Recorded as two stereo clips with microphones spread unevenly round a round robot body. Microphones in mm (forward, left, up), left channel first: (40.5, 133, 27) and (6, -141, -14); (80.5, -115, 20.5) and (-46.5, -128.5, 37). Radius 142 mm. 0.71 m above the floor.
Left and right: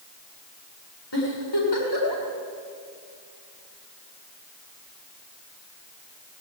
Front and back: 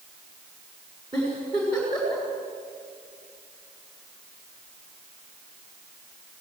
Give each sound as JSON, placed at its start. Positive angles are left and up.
{"t": 1.1, "sound": "a giggle", "azimuth_deg": 110, "distance_m": 7.5}